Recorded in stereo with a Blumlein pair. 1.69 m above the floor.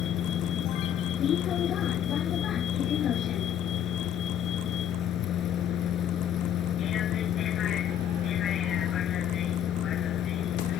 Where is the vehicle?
30° left.